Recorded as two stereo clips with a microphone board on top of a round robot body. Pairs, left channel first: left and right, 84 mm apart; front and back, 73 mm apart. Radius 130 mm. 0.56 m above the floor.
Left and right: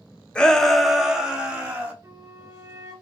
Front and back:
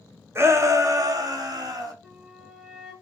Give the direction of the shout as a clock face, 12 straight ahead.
7 o'clock.